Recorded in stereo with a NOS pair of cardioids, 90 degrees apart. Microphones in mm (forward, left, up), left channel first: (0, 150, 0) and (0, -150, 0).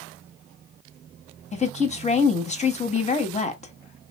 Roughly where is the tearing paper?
I don't hear tearing paper.